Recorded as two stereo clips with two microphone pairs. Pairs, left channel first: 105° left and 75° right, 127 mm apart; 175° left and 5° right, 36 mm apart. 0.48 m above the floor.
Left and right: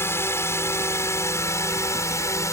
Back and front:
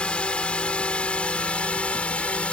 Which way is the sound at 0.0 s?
160° left.